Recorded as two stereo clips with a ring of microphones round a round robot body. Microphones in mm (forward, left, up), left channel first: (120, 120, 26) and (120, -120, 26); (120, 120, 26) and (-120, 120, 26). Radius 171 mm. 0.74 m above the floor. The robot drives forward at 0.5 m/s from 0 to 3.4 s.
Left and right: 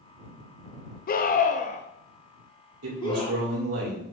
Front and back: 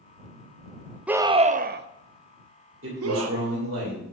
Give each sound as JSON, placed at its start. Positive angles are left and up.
{"t": 1.1, "sound": "a scream", "azimuth_deg": 100, "distance_m": 0.5}
{"t": 2.8, "sound": "a man speaking", "azimuth_deg": -130, "distance_m": 2.0}